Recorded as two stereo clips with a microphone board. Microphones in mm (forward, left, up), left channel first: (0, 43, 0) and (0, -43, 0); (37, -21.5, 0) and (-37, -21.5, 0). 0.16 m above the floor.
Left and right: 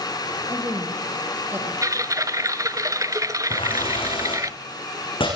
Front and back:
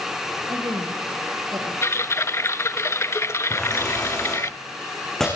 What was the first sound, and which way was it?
A woman speaking, 150° right.